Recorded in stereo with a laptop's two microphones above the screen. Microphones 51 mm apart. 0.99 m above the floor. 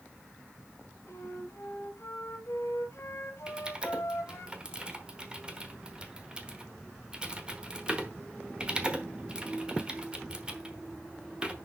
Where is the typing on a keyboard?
20° right (ahead or behind), 1.0 m.